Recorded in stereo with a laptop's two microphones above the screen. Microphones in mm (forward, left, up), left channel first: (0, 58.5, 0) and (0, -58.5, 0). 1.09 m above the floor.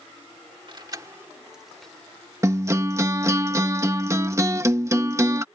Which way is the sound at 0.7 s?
45° right (ahead or behind).